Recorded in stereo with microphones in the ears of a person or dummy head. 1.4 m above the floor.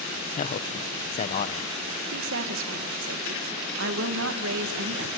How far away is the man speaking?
About 0.9 m.